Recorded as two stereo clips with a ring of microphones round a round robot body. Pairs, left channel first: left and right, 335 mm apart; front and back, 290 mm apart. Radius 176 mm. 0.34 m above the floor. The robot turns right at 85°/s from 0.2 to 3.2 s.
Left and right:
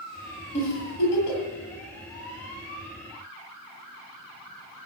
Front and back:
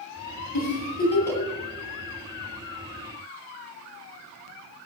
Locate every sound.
0.5 s a giggle: 20° left, 7 m; by 1.4 s 95° left, 7 m